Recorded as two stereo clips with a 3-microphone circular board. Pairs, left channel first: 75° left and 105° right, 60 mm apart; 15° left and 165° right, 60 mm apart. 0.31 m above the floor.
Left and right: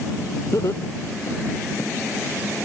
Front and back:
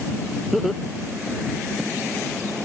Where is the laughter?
105° left.